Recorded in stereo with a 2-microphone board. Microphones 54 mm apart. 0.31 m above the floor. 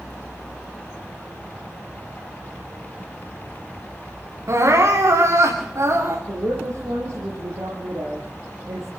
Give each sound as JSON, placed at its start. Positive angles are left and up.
{"t": 4.5, "sound": "crying", "side_deg": -65, "distance_m": 6.5}
{"t": 6.3, "sound": "a woman speaking", "side_deg": -70, "distance_m": 6.0}